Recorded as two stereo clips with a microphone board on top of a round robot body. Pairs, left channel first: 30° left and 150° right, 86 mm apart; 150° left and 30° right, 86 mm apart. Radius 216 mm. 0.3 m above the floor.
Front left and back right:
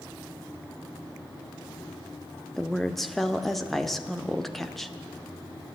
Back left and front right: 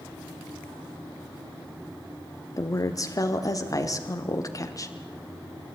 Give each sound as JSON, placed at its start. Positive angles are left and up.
{"t": 2.6, "sound": "a woman speaking", "azimuth_deg": 115, "distance_m": 1.6}